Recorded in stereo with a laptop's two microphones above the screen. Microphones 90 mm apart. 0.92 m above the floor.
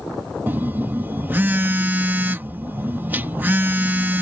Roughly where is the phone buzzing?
Right.